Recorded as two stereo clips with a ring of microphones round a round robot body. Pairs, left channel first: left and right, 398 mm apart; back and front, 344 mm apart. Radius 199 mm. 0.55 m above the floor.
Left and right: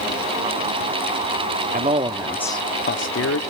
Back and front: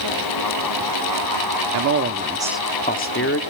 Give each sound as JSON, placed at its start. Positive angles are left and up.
{"t": 1.7, "sound": "a man speaking", "azimuth_deg": -25, "distance_m": 0.8}